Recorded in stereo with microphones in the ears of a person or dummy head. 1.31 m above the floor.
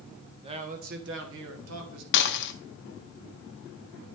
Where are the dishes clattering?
55° left (ahead or behind), 0.7 m.